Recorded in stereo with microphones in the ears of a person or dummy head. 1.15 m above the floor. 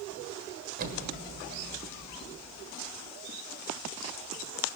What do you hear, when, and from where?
0.8 s an explosion: 50° right (ahead or behind), 1.3 m